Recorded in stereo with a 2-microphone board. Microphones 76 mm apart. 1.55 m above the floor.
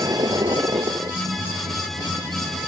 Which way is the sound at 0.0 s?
60° right (ahead or behind).